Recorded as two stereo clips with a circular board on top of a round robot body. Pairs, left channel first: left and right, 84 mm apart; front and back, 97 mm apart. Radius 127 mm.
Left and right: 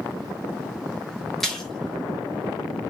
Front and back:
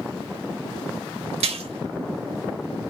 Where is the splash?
175° left, 1.3 m.